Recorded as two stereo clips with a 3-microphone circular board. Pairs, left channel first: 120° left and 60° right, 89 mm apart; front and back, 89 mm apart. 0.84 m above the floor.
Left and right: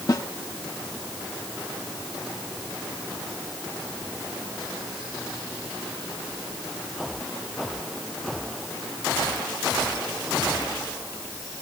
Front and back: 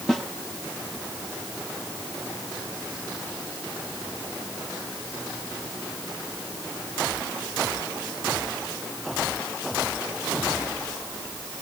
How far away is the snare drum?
About 1.4 m.